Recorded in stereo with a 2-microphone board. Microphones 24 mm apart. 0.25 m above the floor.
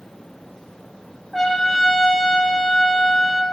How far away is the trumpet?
About 1.9 m.